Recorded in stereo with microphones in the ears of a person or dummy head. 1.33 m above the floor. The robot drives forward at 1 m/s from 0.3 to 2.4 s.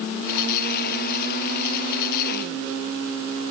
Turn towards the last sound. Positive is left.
No sound to turn to.